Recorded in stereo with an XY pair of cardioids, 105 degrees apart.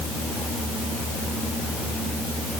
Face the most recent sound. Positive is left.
No sound to turn to.